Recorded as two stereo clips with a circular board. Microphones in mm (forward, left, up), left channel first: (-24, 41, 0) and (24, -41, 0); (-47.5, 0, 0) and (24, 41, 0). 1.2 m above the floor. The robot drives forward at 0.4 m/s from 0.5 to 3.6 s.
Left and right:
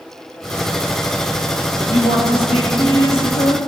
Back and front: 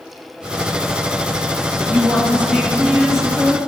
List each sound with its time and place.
1.8 s a woman speaking: 105° left, 2.5 m; by 3.6 s 120° left, 3 m